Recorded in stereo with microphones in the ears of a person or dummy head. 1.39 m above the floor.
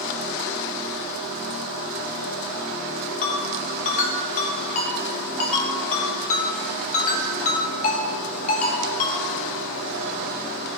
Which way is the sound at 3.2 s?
45° left (ahead or behind).